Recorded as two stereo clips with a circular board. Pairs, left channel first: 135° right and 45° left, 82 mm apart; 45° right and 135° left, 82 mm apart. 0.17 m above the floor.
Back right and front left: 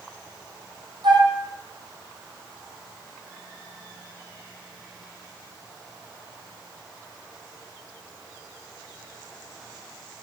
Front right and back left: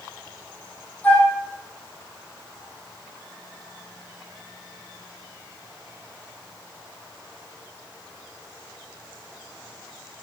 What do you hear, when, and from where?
1.0 s a flute: 25° left, 3.5 m